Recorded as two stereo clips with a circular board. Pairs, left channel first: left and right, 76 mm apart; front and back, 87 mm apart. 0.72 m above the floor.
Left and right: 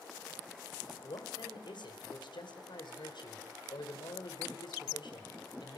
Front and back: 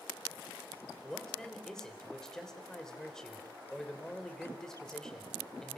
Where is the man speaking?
85° left, 3.5 m.